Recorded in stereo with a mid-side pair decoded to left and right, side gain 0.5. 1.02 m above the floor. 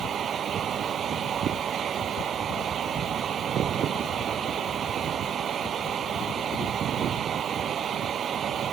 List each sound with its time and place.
0.0 s a fan: 50° right